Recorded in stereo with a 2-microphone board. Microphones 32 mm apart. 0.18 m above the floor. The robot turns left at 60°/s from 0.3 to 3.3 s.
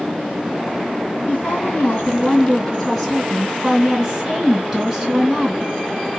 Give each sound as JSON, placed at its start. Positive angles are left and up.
{"t": 1.3, "sound": "a woman speaking", "azimuth_deg": 95, "distance_m": 2.0}